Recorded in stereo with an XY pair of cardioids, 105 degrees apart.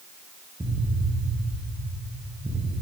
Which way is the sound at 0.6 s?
15° right.